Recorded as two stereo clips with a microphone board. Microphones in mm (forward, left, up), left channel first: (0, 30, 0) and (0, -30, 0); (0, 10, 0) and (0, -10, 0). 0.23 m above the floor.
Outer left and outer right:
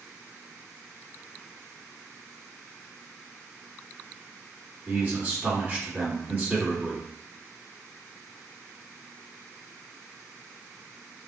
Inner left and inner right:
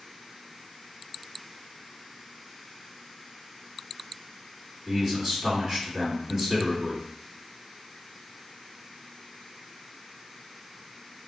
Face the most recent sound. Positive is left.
turn(degrees=-25)  # may be behind; listen again after turning